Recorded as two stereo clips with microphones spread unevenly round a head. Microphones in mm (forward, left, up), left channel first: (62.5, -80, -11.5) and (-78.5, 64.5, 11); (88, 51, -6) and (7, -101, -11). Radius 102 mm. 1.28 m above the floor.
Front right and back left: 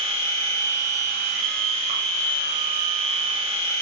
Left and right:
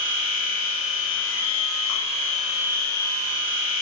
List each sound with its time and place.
0.0 s a machine running: 70° left, 2.5 m